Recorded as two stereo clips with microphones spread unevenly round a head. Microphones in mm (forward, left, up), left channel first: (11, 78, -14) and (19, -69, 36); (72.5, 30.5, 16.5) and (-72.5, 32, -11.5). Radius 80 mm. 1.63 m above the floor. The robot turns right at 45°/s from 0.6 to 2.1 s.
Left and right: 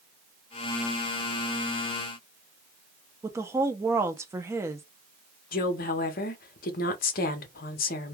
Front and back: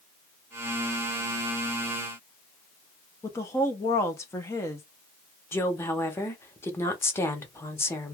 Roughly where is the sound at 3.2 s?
Ahead right.